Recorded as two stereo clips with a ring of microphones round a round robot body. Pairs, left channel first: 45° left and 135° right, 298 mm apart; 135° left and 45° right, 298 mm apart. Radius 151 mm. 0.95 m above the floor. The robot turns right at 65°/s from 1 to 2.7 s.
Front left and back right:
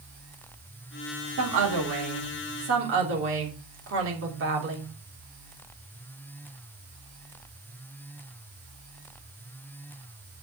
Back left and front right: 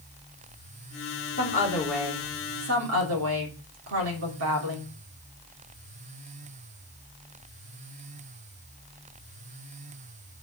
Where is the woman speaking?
170° right, 3 m; by 4.9 s 85° right, 3 m.